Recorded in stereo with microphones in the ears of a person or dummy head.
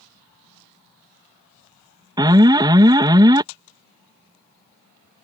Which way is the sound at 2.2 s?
15° right (ahead or behind).